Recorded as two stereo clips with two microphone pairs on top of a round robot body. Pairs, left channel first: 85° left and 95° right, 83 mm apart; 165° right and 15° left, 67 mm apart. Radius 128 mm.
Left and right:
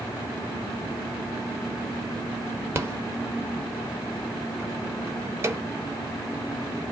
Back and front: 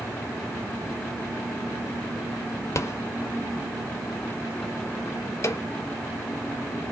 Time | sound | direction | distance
2.8 | a rattle | 145° right | 0.9 m